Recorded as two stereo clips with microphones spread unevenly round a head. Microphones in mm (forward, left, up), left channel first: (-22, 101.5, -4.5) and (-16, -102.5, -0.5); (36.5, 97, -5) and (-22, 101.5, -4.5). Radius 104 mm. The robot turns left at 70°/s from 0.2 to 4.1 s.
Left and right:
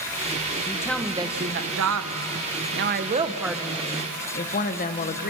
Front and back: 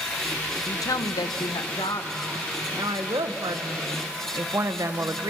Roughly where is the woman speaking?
Ahead left.